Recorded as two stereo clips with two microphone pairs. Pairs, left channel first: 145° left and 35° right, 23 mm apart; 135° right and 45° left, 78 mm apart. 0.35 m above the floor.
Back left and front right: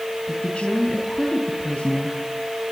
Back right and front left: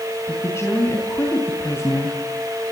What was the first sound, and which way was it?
A woman speaking, 175° left.